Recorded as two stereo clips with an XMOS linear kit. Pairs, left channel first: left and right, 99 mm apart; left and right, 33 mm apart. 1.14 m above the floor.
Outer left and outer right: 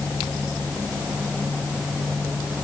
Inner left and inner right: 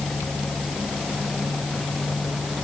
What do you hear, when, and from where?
Only background noise.